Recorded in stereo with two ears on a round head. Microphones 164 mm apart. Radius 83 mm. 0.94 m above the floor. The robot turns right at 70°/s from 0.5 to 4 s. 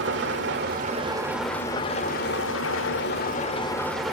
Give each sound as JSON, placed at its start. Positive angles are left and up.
{"t": 0.0, "sound": "an engine running", "azimuth_deg": -65, "distance_m": 2.5}